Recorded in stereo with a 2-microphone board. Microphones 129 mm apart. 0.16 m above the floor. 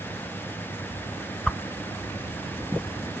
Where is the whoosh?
5° left (ahead or behind), 0.5 m.